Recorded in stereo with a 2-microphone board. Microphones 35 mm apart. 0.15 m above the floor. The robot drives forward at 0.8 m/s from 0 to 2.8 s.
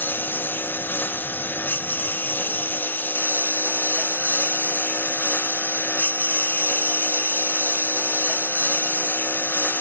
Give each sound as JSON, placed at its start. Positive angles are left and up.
{"t": 0.0, "sound": "a lawn mower", "side_deg": 90}